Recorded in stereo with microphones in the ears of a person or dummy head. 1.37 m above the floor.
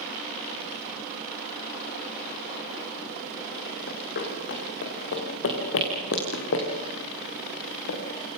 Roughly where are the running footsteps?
Left.